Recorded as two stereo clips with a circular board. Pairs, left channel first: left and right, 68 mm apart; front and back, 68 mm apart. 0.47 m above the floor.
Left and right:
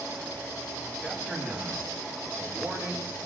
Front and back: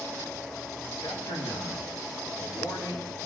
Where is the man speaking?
5° left, 7.5 m; by 3.3 s 5° right, 9 m.